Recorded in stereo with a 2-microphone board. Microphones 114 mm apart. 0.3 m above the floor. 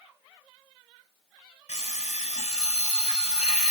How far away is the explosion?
I don't hear an explosion.